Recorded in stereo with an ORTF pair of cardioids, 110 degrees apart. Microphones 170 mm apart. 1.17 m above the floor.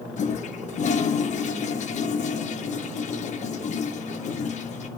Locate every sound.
0.2 s a toilet flushing: 45° left, 1.0 m